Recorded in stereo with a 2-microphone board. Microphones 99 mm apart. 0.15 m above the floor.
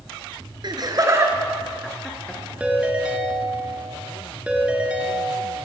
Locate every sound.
0.6 s laughter: 50° right (ahead or behind), 1.8 m; by 2.4 s 10° left (ahead or behind), 2.0 m
2.6 s a ringtone: 10° right (ahead or behind), 1.6 m